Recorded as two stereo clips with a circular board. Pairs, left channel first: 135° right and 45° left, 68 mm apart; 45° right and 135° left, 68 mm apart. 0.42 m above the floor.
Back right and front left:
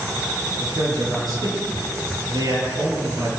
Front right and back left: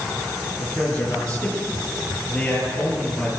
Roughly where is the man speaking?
Ahead left.